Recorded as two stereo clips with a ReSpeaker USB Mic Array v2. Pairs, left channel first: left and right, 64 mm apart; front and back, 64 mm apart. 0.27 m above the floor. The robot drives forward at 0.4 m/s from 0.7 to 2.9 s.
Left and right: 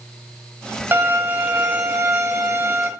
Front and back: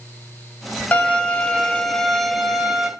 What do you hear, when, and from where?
0.9 s a violin: 55° right, 1.4 m; by 2.9 s 110° right, 1.3 m